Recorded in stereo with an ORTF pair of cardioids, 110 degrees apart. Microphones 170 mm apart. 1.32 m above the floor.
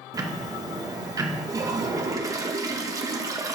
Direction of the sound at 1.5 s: 20° right.